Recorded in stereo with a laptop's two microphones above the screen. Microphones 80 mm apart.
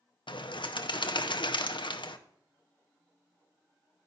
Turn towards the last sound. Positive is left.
turn(degrees=75)  # may be behind; listen again after turning